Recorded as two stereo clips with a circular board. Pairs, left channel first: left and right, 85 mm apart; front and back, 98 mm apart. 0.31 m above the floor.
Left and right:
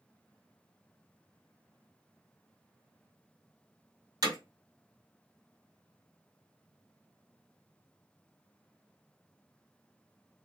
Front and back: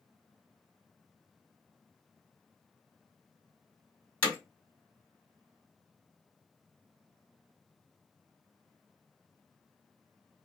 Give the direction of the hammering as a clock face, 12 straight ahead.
2 o'clock.